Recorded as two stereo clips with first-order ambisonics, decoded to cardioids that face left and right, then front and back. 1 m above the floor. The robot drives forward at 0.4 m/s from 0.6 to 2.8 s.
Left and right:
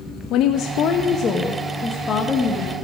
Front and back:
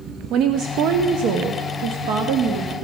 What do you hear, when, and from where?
0.3 s a woman speaking: 130° left, 0.6 m; by 2.8 s 160° left, 1.4 m